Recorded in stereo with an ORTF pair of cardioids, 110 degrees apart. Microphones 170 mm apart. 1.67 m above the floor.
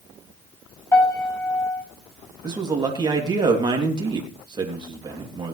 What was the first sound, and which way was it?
A piano, 15° left.